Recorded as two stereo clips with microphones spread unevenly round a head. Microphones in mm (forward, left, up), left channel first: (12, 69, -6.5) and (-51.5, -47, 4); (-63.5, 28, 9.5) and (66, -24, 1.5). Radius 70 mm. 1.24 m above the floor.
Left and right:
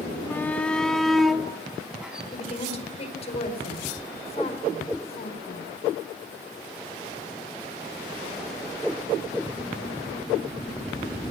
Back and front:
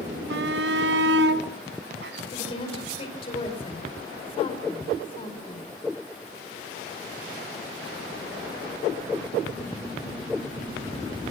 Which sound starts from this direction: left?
A woman speaking, at 2.3 s.